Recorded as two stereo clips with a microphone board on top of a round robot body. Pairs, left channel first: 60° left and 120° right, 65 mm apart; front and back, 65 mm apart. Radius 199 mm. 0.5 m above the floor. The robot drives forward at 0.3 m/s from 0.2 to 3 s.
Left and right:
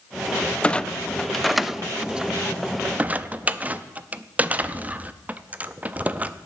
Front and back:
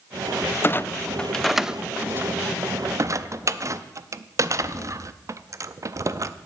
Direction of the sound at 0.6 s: Straight ahead.